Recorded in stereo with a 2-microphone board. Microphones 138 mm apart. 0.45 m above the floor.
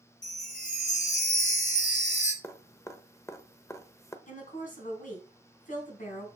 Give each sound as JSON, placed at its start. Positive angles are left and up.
{"t": 0.2, "sound": "a chime", "side_deg": 70, "distance_m": 1.1}
{"t": 2.4, "sound": "dripping", "side_deg": 20, "distance_m": 0.8}
{"t": 4.3, "sound": "a woman speaking", "side_deg": 75, "distance_m": 3.0}